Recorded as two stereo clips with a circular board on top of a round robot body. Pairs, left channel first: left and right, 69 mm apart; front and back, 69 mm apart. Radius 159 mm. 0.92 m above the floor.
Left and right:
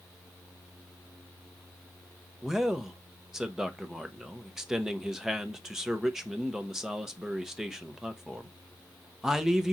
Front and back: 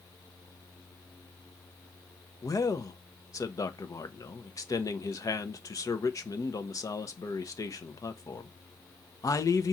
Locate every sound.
2.4 s a man speaking: 10° right, 0.8 m